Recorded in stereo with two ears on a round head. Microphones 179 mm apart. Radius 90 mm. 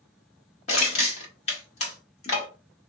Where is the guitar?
I don't hear a guitar.